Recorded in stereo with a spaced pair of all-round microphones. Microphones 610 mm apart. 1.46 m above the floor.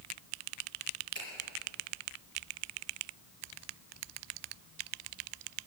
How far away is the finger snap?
About 5 m.